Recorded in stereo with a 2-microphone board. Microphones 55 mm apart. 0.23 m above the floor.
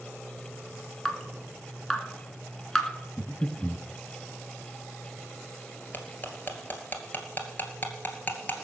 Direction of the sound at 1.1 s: 5° left (ahead or behind).